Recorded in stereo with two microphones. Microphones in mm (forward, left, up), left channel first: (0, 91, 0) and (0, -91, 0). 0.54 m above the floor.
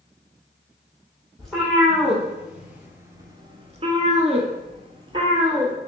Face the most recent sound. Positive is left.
turn(degrees=-25)  # may be behind; listen again after turning